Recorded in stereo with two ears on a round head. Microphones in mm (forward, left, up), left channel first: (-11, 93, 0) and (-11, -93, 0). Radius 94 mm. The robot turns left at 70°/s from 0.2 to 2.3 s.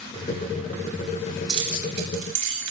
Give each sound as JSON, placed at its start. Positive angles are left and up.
{"t": 1.5, "sound": "keys jangling", "side_deg": -20, "distance_m": 8.0}